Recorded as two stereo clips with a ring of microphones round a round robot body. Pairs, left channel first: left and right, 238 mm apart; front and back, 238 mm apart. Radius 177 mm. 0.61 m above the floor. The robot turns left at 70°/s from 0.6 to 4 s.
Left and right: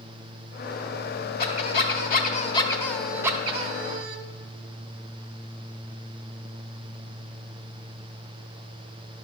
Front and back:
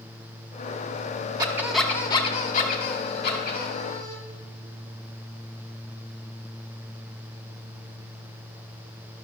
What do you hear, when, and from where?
1.4 s a squeak: 115° left, 0.5 m; by 4.2 s 65° right, 0.5 m